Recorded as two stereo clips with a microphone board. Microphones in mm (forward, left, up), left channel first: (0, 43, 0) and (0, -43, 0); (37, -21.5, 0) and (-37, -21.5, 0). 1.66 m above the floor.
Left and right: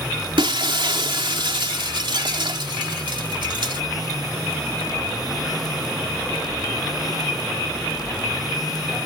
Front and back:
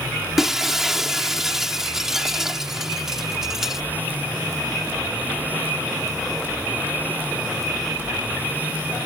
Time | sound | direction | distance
0.4 | breaking glass | 100° right | ?